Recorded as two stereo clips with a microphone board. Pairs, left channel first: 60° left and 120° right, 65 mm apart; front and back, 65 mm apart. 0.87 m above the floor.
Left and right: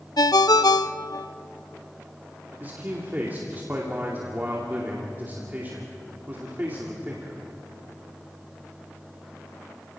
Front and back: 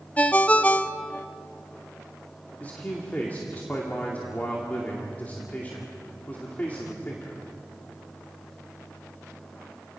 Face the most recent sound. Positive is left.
turn(degrees=-60)